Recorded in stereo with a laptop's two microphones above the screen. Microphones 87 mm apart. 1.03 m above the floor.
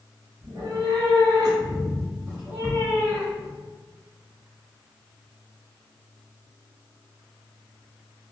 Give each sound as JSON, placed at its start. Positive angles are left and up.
{"t": 0.4, "sound": "a cat meowing", "side_deg": -55, "distance_m": 1.5}